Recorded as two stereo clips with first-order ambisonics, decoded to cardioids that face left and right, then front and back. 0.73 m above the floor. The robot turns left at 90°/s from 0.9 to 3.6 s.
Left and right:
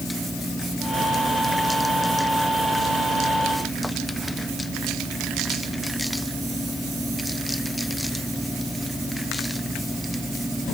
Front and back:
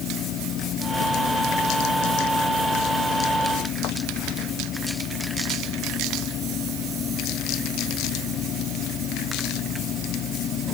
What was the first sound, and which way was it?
Only background noise.